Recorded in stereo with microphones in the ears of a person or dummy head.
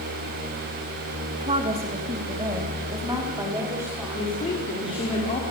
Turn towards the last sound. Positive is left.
turn(degrees=25)  # may be behind; listen again after turning